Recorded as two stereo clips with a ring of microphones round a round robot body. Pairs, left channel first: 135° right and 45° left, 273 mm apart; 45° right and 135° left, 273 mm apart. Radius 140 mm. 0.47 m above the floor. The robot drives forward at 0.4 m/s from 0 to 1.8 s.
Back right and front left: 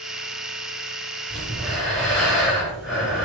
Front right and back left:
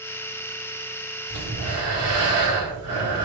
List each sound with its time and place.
1.3 s breathing: 130° left, 2.0 m; by 3.2 s 135° left, 2 m